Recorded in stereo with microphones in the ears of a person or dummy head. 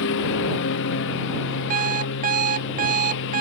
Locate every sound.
0.0 s a lawn mower: 70° left (ahead or behind)
1.7 s an alarm clock: 45° right (ahead or behind)